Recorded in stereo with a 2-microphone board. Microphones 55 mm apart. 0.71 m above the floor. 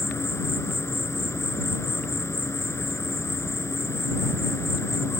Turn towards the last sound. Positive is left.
turn(degrees=60)  # may be behind; listen again after turning